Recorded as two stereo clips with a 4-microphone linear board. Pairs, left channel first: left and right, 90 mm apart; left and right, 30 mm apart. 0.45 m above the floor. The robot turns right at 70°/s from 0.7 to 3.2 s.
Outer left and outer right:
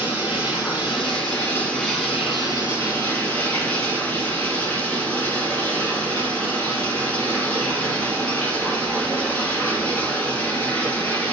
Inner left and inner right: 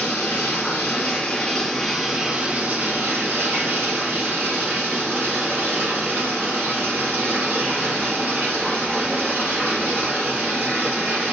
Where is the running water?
95° left, 2.5 m; by 11.3 s 90° right, 2.5 m.